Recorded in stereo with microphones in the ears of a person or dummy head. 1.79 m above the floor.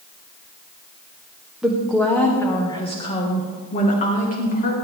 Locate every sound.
1.6 s a woman speaking: 5° right (ahead or behind), 1.2 m; by 4.7 s 50° left (ahead or behind), 2.5 m